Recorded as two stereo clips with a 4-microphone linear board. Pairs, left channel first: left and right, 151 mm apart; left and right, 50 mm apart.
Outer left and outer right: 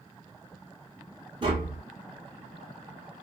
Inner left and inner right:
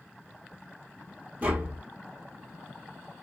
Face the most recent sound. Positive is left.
turn(degrees=-35)  # may be behind; listen again after turning